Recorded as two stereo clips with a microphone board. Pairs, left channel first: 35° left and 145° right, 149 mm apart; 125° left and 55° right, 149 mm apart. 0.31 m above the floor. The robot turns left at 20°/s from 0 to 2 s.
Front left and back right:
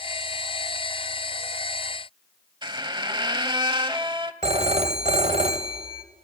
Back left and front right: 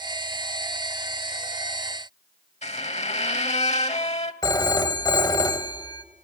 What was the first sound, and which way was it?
A squeak, 160° left.